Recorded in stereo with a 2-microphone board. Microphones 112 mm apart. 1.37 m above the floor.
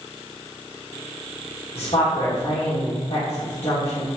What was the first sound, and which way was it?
A woman speaking, 55° left (ahead or behind).